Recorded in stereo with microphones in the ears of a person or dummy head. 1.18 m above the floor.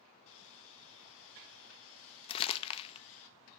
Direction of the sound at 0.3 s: 70° left (ahead or behind).